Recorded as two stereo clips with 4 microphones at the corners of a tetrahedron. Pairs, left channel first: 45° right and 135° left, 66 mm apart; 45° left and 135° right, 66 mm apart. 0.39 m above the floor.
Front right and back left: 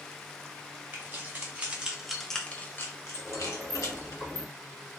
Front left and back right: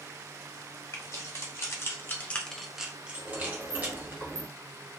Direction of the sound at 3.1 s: 165° right.